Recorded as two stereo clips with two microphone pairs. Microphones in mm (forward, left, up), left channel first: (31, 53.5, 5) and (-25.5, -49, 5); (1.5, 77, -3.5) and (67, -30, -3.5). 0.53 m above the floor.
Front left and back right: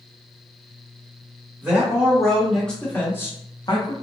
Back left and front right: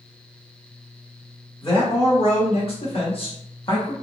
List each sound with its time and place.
1.6 s a man speaking: 160° left, 1.5 m; by 3.9 s 80° left, 0.8 m